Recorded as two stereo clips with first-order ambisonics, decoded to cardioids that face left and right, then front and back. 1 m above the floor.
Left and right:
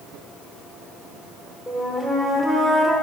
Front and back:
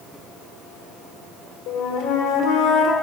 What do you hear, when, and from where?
1.7 s a flute: 10° left, 1.0 m